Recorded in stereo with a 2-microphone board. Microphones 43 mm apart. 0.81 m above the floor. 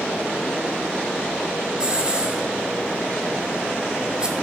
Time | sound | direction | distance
1.8 | a hiss | 20° right (ahead or behind) | 2.5 m